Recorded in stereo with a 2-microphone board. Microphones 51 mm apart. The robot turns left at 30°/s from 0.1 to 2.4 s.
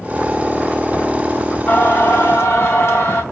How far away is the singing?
About 2.5 m.